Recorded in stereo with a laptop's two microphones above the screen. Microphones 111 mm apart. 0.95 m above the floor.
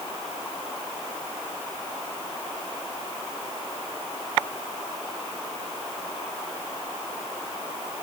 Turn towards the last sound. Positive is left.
No sound to turn to.